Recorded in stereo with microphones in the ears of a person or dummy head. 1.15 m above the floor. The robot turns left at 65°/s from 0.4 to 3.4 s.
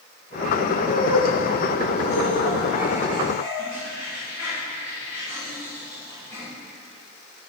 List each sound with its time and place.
0.8 s laughter: 30° right (ahead or behind), 3.5 m; by 6.5 s 20° left (ahead or behind), 3.5 m